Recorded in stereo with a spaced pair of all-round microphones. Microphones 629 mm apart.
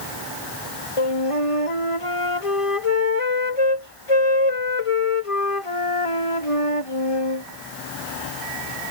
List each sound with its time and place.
1.0 s a flute: 55° left (ahead or behind)